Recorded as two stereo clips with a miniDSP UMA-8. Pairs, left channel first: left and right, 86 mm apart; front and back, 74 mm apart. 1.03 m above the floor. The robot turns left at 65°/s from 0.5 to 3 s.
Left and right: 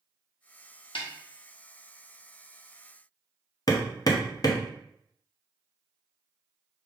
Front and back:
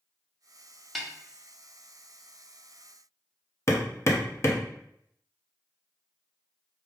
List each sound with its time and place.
0.9 s a snare drum: 90° left, 0.6 m; by 1.1 s 80° left, 0.6 m
3.7 s hammering: 50° left, 0.6 m